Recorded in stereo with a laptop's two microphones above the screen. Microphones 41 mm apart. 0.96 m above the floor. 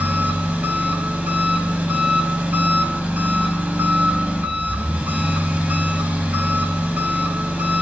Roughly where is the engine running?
Right.